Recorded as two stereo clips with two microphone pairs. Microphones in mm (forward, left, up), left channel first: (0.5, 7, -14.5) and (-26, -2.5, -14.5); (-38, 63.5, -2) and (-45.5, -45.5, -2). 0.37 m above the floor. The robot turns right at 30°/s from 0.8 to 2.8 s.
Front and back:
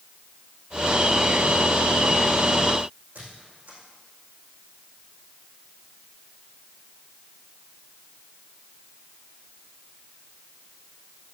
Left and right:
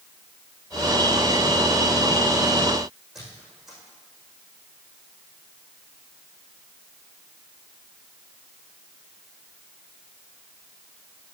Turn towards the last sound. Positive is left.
turn(degrees=180)